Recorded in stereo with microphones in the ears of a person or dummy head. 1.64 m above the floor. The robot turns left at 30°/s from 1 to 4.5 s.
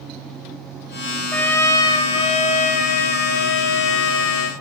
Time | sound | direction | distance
1.3 | a trumpet | 175° left | 3 m